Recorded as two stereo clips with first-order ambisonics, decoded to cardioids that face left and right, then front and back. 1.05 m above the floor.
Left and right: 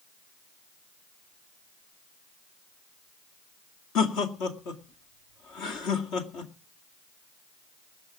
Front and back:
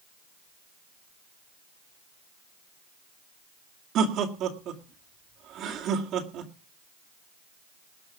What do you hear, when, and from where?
4.0 s laughter: 130° left, 2 m